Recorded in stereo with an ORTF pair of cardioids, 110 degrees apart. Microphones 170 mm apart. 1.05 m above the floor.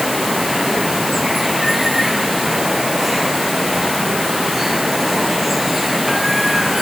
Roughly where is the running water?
Ahead.